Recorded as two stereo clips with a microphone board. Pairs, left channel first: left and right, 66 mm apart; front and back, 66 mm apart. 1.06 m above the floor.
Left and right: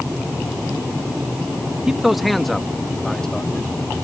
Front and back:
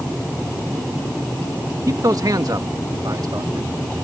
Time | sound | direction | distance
1.9 | a man speaking | 170° right | ?